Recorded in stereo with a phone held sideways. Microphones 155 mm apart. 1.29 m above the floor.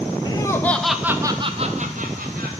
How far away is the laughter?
About 1.4 m.